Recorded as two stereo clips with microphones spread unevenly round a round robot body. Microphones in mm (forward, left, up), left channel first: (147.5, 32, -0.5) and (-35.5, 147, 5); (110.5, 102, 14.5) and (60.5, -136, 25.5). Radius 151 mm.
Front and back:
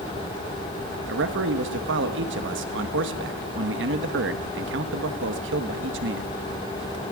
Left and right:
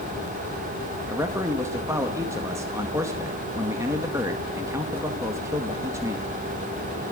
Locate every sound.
1.1 s a man speaking: straight behind, 1.5 m